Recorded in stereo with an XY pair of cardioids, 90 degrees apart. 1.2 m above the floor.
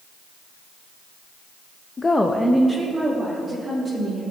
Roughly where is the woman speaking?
Ahead left.